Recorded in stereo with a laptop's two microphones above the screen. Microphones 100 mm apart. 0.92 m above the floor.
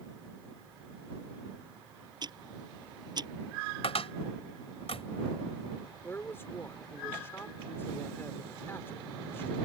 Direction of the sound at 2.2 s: 45° right (ahead or behind).